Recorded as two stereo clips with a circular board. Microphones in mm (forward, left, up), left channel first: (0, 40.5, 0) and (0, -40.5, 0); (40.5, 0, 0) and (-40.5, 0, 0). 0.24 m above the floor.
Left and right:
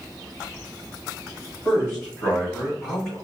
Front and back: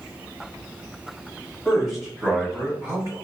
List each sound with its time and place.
1.6 s a man speaking: 50° left, 1.6 m; by 3.1 s 175° left, 2.0 m